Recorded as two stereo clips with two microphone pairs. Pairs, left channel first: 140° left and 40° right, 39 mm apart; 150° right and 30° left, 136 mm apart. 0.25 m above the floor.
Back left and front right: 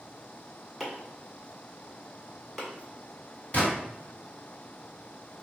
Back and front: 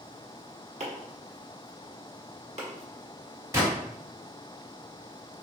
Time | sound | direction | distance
0.8 | chopping | 45° left | 1.2 m
3.5 | a gunshot | 90° left | 1.8 m